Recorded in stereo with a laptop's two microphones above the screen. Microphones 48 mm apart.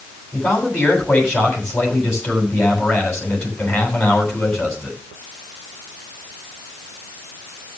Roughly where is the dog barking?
No dog barking in this recording.